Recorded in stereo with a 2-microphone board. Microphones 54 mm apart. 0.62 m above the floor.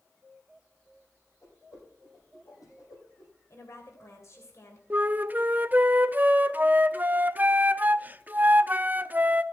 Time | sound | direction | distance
1.4 | a whoosh | 75° left (ahead or behind) | 8.5 m
3.5 | a woman speaking | 55° left (ahead or behind) | 3.5 m
4.9 | a flute | 30° right (ahead or behind) | 0.6 m